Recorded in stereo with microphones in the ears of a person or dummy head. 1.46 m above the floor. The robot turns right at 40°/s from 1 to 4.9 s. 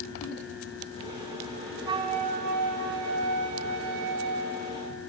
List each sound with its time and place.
1.9 s a flute: 165° right, 1.4 m; by 4.9 s 45° right, 1.4 m